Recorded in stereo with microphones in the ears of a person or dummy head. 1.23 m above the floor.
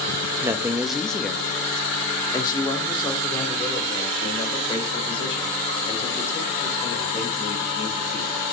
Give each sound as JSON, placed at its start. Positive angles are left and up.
{"t": 0.4, "sound": "a man speaking", "side_deg": -15, "distance_m": 1.4}